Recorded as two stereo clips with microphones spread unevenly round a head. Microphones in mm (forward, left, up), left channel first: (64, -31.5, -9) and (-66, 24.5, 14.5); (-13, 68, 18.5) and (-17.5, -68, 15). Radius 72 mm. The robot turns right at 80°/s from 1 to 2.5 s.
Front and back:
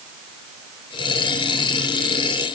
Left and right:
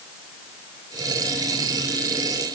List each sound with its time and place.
Only background noise.